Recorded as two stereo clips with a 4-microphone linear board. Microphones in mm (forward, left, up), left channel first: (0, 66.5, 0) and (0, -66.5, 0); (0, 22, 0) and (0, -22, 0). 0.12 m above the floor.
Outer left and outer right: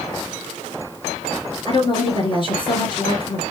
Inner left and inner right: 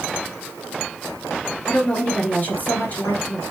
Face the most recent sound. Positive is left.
turn(degrees=40)  # may be behind; listen again after turning